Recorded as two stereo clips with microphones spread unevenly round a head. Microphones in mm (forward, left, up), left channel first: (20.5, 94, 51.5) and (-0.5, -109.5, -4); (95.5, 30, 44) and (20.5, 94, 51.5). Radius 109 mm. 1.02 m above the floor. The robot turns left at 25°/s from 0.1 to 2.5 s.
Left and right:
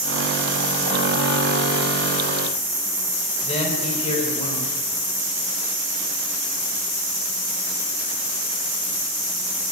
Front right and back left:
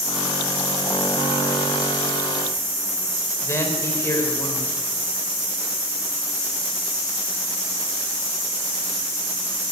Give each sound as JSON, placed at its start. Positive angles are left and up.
{"t": 3.4, "sound": "a man speaking", "azimuth_deg": 20, "distance_m": 5.0}